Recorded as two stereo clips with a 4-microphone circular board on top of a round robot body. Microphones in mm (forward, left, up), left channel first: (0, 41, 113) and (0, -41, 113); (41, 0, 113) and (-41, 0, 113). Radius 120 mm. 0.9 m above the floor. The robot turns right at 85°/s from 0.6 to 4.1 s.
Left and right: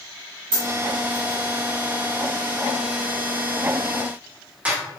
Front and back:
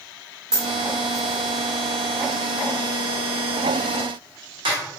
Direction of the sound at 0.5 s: 100° right.